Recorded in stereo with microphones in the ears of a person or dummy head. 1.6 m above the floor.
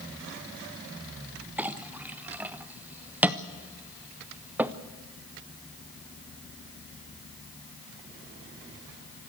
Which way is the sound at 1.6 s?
10° right (ahead or behind).